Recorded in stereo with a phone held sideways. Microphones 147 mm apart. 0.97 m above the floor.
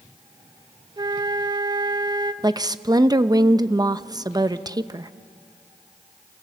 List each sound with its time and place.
1.0 s a flute: 30° right (ahead or behind), 0.8 m
2.4 s a woman speaking: 25° right (ahead or behind), 0.8 m